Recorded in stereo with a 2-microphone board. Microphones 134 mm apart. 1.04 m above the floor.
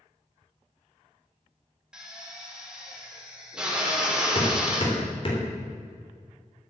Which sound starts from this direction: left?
Hammering, at 4.3 s.